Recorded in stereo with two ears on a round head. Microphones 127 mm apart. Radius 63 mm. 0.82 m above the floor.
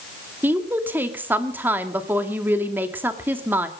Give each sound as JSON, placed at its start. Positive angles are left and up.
{"t": 0.4, "sound": "a woman speaking", "side_deg": -15, "distance_m": 1.9}